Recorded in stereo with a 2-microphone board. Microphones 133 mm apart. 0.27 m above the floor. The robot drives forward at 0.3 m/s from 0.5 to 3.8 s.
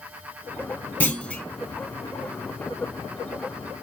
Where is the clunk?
15° left (ahead or behind), 0.5 m; by 1.4 s 10° left (ahead or behind), 0.6 m.